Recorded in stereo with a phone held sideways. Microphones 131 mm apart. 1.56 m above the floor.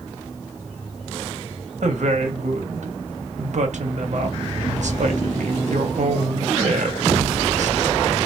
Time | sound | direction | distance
1.8 | a woman speaking | 70° right (ahead or behind) | 0.8 m